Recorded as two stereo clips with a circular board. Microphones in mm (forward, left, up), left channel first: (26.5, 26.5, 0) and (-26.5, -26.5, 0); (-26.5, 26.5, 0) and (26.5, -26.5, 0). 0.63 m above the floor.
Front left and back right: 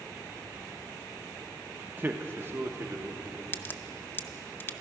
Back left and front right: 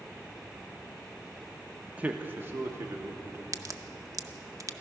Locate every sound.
1.9 s a man speaking: 105° right, 0.8 m; by 3.4 s 90° right, 1.4 m
3.5 s a crack: 15° right, 0.6 m